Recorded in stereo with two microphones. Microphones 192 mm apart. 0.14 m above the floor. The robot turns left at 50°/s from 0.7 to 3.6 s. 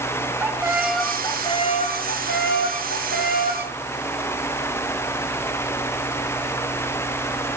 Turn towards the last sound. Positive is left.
turn(degrees=45)